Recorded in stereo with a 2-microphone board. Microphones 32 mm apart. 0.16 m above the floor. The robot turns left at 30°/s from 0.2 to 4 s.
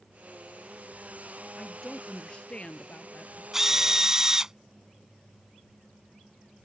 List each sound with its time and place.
1.6 s a woman speaking: 165° left; by 3.4 s 110° left
3.5 s a drill: 10° right (ahead or behind); by 4.5 s 20° right (ahead or behind)